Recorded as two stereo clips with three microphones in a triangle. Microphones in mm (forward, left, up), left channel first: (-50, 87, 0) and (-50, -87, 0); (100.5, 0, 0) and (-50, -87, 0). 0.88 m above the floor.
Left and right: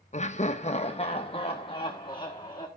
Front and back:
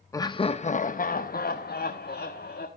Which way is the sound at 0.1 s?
90° left.